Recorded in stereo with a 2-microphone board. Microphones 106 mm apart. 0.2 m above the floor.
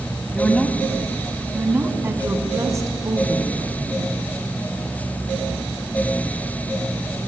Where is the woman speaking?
15° left (ahead or behind), 1.0 m; by 4.1 s 40° right (ahead or behind), 2 m.